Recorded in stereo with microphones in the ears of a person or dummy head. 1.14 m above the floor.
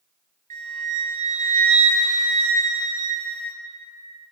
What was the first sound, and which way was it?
A flute, 40° right (ahead or behind).